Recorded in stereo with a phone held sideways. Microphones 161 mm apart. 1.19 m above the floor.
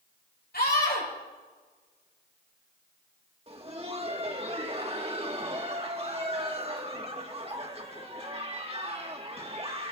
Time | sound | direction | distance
0.5 | a scream | 80° left | 5 m
3.5 | laughter | 40° right (ahead or behind) | 1.8 m